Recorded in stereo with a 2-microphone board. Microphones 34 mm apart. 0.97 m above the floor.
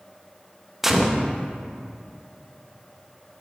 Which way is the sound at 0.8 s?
5° right (ahead or behind).